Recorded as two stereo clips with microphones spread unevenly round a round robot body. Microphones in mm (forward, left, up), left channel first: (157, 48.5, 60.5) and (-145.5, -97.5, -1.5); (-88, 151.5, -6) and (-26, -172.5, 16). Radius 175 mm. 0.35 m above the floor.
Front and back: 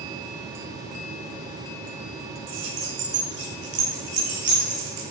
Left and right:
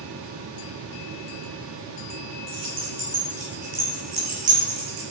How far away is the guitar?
No guitar in this recording.